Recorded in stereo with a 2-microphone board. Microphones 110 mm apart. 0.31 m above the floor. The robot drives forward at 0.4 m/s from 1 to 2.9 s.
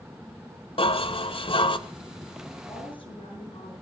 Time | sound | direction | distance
0.8 | dishes clattering | 60° left (ahead or behind) | 1.4 m
2.6 | a woman speaking | 50° left (ahead or behind) | 9.5 m